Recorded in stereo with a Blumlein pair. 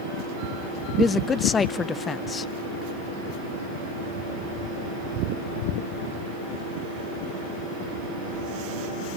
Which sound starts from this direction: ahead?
A man speaking, at 1.0 s.